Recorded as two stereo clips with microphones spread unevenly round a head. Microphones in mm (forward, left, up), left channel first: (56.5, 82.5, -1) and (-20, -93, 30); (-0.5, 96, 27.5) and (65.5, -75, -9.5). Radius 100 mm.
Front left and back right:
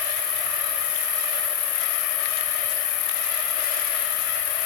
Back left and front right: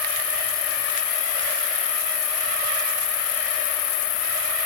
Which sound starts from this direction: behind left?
An insect, at 0.0 s.